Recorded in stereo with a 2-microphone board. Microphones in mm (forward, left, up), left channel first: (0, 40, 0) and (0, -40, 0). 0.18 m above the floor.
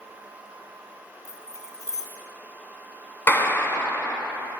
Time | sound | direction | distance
1.2 | keys jangling | 40° left (ahead or behind) | 1.4 m
3.3 | a clap | 25° left (ahead or behind) | 1.3 m